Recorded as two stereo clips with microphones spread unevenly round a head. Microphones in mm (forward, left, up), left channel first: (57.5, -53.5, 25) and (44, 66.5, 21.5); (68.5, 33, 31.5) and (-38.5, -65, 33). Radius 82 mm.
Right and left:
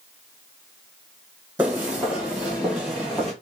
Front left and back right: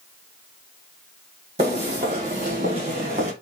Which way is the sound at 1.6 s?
175° left.